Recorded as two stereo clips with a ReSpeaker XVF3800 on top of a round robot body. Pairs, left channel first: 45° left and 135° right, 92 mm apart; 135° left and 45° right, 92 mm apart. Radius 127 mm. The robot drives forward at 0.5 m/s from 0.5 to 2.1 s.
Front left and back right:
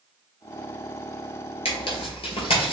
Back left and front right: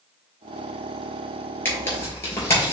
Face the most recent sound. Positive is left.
turn(degrees=75)